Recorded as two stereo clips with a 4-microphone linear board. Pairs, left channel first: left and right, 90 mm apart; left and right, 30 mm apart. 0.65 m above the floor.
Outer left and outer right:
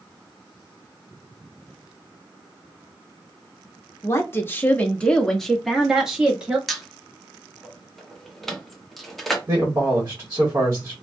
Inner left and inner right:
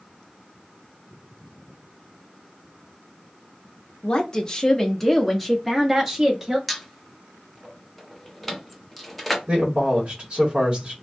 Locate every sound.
4.0 s a woman speaking: 30° left (ahead or behind), 0.9 m; by 6.6 s 10° right (ahead or behind), 1.5 m
6.7 s a squeak: centre (ahead or behind), 0.8 m
9.5 s a man speaking: 30° right (ahead or behind), 1.4 m